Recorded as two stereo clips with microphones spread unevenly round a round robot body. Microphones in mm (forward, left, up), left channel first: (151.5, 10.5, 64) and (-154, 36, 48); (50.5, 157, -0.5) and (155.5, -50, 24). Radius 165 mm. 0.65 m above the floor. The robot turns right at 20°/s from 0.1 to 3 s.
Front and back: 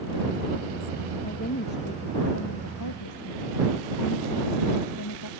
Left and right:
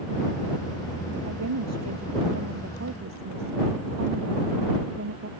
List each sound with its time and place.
1.2 s a woman speaking: 75° right; by 5.3 s 40° right